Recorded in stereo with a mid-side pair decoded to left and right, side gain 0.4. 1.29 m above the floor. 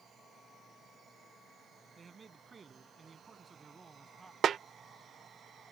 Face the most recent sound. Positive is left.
turn(degrees=-60)